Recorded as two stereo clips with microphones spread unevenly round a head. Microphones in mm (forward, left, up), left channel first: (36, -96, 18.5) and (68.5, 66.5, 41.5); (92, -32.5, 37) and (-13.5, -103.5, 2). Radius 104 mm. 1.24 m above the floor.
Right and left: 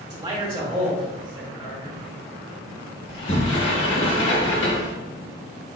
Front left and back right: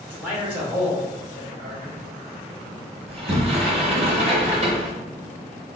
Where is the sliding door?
100° right, 1.1 m.